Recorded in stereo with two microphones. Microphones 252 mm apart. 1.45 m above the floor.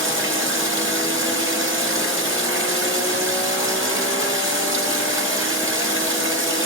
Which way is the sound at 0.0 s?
50° right (ahead or behind).